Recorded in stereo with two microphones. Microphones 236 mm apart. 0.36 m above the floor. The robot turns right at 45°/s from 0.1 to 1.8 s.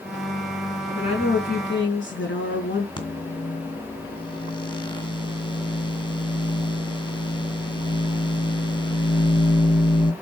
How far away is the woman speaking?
About 3.5 m.